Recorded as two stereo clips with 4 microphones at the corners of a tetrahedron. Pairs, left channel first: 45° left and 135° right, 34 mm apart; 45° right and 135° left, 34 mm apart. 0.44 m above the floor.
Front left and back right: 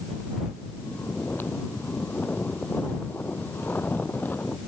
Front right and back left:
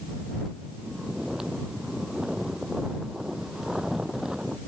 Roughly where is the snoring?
Ahead left.